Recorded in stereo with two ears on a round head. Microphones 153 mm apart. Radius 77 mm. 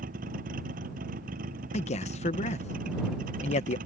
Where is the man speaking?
40° left (ahead or behind).